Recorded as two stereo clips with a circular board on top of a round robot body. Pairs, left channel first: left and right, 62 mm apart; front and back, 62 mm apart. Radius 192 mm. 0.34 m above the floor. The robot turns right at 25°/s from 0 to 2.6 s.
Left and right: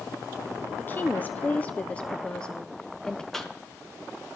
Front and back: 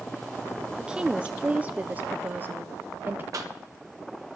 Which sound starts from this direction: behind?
A cough, at 3.3 s.